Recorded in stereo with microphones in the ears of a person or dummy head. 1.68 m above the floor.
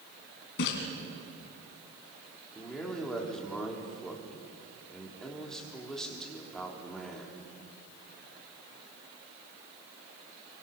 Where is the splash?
65° left (ahead or behind), 3.5 m.